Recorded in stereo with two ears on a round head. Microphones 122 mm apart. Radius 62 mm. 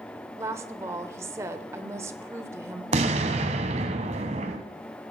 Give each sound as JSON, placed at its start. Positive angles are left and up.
{"t": 0.4, "sound": "a woman speaking", "side_deg": -20, "distance_m": 1.2}
{"t": 2.9, "sound": "an explosion", "side_deg": -55, "distance_m": 1.6}